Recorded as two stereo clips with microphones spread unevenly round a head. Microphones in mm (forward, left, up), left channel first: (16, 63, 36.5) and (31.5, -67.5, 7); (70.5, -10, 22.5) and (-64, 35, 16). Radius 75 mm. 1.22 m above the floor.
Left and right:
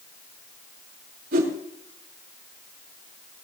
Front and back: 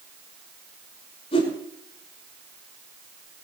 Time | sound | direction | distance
1.3 | a whoosh | 70° right | 6 m